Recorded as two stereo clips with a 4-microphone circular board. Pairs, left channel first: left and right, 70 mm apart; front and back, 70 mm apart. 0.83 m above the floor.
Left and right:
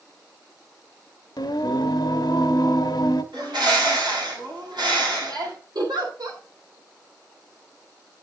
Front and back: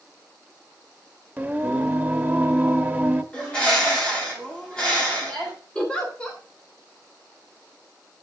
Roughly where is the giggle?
Right.